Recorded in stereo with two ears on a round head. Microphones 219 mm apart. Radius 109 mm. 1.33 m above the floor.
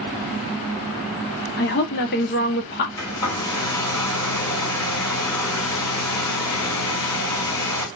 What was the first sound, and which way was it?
A woman speaking, 45° left (ahead or behind).